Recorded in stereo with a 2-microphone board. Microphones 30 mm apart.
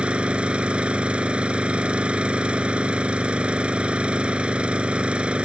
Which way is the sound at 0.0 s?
40° right (ahead or behind).